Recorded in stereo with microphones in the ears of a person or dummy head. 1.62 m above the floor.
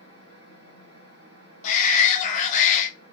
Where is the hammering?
I don't hear hammering.